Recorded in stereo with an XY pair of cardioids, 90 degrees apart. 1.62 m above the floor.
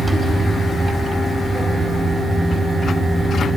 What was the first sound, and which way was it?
A fan, 30° right.